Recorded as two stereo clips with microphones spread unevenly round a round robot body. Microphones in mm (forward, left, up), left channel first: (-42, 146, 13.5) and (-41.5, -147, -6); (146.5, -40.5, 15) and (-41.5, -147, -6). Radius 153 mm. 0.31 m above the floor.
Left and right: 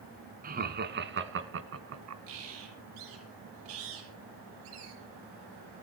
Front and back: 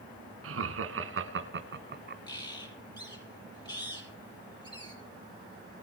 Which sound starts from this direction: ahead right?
A bird, at 2.3 s.